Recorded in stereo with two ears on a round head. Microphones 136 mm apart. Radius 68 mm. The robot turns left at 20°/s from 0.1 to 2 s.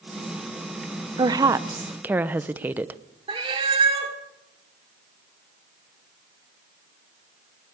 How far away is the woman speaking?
About 0.8 m.